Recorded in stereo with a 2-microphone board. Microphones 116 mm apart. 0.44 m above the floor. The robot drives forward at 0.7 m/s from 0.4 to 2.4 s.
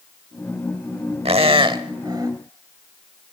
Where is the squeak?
55° right (ahead or behind), 0.9 m; by 2.3 s 35° right (ahead or behind), 1.3 m.